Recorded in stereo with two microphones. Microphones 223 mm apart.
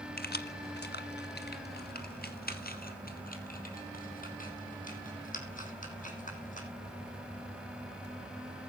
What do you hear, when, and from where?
0.2 s keys jangling: 45° left (ahead or behind), 1.3 m; by 6.7 s 35° left (ahead or behind), 6.5 m